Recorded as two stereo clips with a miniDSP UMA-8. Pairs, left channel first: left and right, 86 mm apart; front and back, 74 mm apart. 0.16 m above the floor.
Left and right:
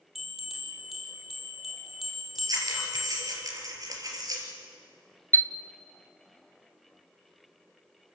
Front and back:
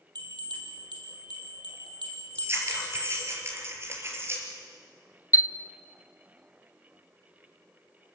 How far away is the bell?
About 5.5 m.